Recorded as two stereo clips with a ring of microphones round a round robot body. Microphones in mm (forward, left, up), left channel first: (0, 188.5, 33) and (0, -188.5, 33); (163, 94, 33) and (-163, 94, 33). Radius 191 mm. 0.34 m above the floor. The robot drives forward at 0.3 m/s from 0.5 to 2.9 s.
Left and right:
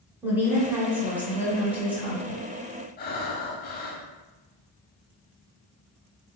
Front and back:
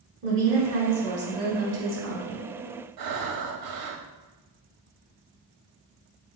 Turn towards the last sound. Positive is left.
turn(degrees=155)